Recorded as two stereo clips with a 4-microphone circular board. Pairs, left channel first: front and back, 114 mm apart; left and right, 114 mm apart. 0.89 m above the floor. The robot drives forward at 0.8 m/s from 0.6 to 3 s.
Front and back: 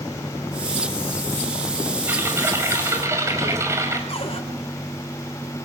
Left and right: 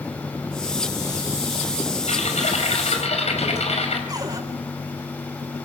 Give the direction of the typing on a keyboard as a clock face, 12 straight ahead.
8 o'clock.